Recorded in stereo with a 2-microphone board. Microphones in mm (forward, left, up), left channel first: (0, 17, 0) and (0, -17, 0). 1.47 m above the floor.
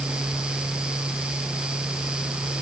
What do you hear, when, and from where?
Only background noise.